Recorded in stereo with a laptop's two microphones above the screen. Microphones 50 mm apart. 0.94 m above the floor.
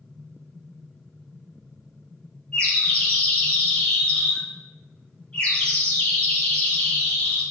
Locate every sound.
2.5 s a bird: 20° left (ahead or behind), 1.3 m